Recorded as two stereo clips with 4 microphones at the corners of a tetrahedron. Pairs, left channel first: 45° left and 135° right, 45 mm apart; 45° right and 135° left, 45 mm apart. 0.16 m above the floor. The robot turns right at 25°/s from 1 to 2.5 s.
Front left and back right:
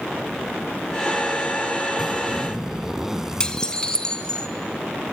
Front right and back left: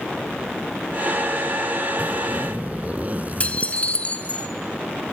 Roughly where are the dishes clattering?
Ahead.